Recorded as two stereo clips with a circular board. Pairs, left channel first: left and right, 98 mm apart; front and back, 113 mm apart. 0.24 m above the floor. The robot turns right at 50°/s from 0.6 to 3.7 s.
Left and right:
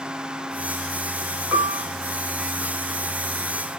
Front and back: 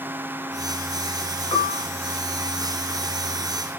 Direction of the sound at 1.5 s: 35° right.